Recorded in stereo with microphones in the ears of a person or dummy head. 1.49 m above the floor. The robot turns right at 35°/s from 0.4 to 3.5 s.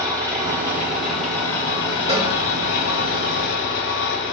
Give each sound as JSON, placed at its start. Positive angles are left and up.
{"t": 0.0, "sound": "an engine running", "azimuth_deg": -25, "distance_m": 1.3}
{"t": 2.1, "sound": "a cowbell", "side_deg": -35, "distance_m": 1.7}